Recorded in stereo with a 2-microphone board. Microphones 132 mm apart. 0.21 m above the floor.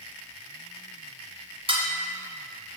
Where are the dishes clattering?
45° right (ahead or behind), 1.3 m.